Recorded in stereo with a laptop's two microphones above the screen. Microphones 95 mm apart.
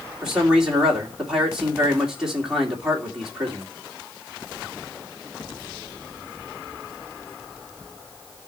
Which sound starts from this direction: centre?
A man speaking, at 0.2 s.